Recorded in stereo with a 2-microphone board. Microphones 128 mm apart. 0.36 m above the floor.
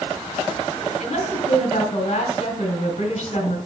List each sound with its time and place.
1.0 s a woman speaking: 60° left (ahead or behind), 3 m